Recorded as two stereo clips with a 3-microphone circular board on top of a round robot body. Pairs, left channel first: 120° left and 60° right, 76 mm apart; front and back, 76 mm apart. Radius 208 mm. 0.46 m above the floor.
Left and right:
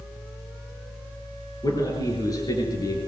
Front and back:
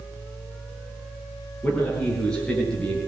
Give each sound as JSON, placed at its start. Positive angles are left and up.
{"t": 1.6, "sound": "a man speaking", "azimuth_deg": 80, "distance_m": 9.5}